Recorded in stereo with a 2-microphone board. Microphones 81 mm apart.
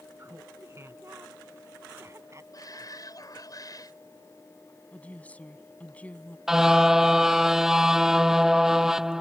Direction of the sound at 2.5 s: 50° left (ahead or behind).